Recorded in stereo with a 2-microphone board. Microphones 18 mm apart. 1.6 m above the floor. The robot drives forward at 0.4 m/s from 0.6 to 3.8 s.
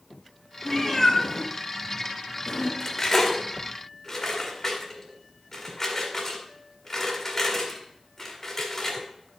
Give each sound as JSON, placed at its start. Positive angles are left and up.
{"t": 0.7, "sound": "a cat meowing", "side_deg": 15, "distance_m": 2.5}
{"t": 2.8, "sound": "cutlery clinking", "side_deg": 25, "distance_m": 1.7}